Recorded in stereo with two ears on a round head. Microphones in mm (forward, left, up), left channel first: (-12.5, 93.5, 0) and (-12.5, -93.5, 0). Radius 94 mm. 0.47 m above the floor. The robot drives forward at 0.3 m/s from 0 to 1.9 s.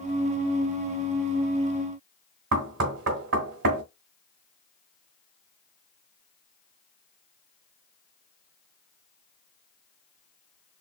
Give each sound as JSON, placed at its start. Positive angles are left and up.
{"t": 2.5, "sound": "knocking", "side_deg": -65, "distance_m": 1.5}